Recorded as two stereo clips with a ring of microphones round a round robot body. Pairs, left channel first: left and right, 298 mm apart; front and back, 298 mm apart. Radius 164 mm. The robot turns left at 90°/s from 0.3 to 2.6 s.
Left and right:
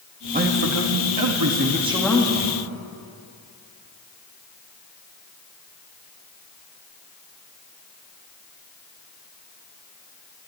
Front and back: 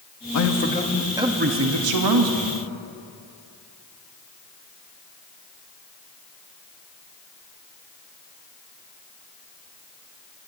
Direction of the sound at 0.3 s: 25° right.